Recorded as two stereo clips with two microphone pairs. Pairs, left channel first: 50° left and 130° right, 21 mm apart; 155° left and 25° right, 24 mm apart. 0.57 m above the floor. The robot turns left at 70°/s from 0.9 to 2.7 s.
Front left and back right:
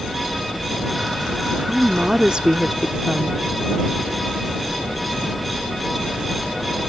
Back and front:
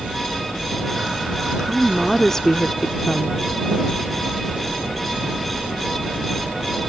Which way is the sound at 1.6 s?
90° right.